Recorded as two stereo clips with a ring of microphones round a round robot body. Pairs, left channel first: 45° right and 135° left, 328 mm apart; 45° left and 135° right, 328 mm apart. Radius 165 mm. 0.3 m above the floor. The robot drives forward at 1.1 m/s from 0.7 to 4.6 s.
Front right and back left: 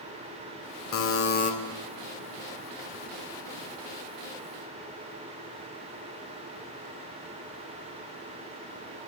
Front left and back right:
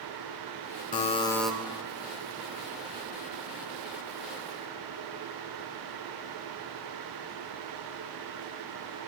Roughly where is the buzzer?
Ahead.